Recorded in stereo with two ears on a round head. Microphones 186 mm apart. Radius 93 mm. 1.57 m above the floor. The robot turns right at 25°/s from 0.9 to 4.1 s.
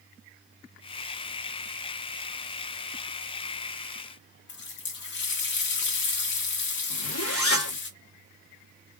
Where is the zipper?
75° left (ahead or behind), 2 m.